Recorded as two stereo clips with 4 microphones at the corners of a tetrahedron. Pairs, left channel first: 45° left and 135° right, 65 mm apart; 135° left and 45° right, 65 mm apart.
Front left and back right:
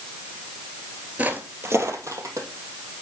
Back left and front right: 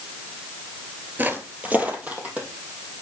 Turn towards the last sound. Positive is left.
turn(degrees=-115)